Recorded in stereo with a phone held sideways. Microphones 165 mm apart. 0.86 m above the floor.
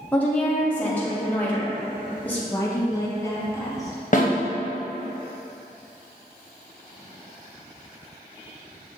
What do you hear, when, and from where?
0.1 s a woman speaking: 10° left (ahead or behind), 0.7 m
2.5 s a woman speaking: 20° left (ahead or behind), 1.0 m
4.1 s a snare drum: 50° left (ahead or behind), 0.8 m